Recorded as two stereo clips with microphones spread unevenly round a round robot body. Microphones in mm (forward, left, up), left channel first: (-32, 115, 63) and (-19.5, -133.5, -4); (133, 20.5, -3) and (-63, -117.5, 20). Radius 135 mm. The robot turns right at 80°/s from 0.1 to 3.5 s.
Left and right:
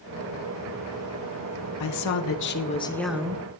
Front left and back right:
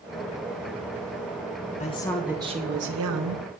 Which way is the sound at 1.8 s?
90° left.